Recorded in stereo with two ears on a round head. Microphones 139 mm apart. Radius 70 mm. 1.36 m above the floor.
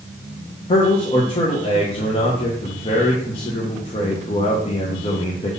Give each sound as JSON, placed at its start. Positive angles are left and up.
{"t": 0.7, "sound": "a man speaking", "side_deg": 35, "distance_m": 1.0}